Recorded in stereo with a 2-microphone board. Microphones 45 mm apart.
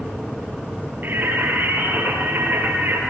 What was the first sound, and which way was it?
Singing, 55° right (ahead or behind).